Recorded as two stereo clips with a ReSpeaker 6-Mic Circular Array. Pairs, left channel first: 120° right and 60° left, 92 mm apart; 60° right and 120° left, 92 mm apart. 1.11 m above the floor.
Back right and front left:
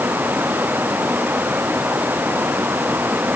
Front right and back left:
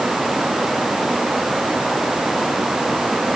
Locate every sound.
Only background noise.